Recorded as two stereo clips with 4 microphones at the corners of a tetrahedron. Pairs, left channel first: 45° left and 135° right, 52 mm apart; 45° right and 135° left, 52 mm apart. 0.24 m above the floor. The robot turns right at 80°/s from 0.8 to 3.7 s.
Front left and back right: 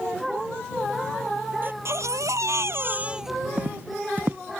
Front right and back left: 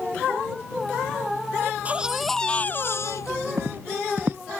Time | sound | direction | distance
1.6 | a baby crying | 175° left | ?
3.6 | footsteps | 165° left | ?